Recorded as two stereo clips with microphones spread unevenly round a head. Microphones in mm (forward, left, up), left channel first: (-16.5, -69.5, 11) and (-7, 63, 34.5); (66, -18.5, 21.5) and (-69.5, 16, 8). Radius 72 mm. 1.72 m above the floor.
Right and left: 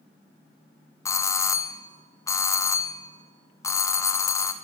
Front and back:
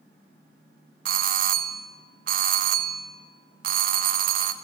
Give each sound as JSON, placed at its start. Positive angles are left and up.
{"t": 1.1, "sound": "a doorbell", "azimuth_deg": -165, "distance_m": 0.9}